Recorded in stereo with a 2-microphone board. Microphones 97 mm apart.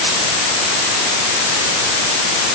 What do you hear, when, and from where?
Only background noise.